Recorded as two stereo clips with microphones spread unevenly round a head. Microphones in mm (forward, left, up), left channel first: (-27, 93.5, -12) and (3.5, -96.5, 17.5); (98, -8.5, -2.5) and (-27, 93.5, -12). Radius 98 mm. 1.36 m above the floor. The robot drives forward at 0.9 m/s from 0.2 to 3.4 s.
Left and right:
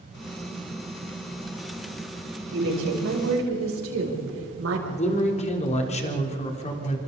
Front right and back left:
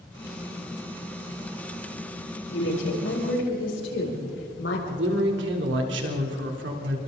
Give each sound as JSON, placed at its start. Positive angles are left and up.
{"t": 2.5, "sound": "a woman speaking", "azimuth_deg": -55, "distance_m": 8.0}
{"t": 4.9, "sound": "a man speaking", "azimuth_deg": 155, "distance_m": 3.5}